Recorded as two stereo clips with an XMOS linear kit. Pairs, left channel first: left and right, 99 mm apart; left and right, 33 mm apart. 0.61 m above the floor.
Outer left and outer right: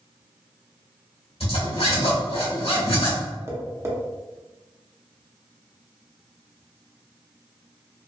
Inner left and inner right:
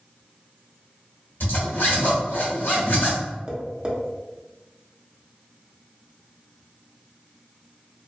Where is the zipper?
85° left, 1.1 m.